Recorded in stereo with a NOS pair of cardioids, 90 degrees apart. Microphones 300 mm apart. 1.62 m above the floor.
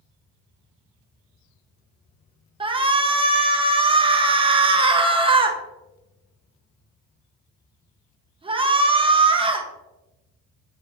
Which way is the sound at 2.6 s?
20° right.